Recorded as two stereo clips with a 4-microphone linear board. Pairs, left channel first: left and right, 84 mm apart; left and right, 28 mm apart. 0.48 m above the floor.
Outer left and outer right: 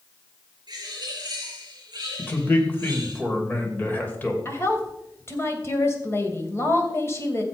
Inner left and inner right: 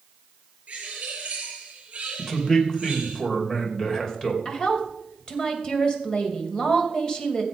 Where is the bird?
50° right (ahead or behind), 7.5 m.